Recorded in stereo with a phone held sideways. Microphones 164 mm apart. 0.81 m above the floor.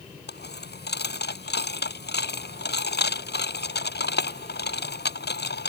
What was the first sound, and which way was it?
A dropped coin, 75° left (ahead or behind).